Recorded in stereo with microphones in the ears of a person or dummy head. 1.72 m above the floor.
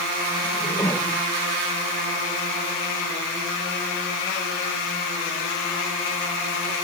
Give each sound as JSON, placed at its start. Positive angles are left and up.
{"t": 0.4, "sound": "a whoosh", "side_deg": 15}